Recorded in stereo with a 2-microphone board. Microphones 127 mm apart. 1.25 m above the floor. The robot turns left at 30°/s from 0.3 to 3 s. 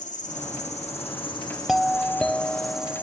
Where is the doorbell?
Centre (ahead or behind), 1.2 m; by 3.0 s 15° left (ahead or behind), 1.2 m.